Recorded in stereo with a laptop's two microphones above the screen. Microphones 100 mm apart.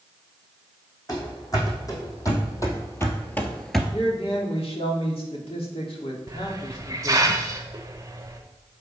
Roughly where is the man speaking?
Left.